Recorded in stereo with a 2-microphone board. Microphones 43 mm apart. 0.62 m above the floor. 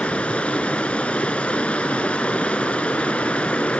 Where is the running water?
30° left (ahead or behind), 0.7 m.